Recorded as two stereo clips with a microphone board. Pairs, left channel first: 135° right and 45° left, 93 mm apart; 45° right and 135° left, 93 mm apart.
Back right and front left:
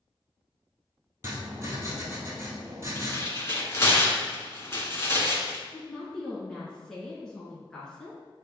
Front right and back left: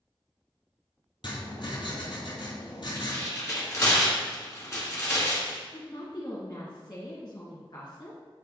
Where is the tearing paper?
85° right, 2 m.